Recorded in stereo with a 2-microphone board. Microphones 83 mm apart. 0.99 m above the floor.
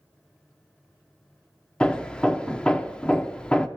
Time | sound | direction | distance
1.8 | hammering | 10° left (ahead or behind) | 0.7 m